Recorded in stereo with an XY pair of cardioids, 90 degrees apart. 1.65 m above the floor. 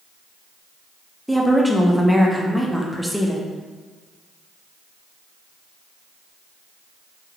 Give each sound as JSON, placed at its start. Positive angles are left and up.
{"t": 1.3, "sound": "a woman speaking", "azimuth_deg": 0, "distance_m": 0.8}